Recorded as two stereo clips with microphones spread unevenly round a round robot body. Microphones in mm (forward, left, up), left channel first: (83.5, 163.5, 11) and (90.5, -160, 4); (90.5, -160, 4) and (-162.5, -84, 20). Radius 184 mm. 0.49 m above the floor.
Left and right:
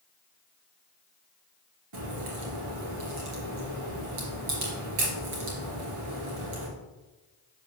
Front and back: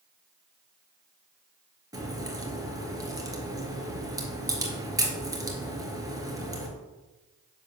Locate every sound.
1.9 s a crack: 120° right, 2.5 m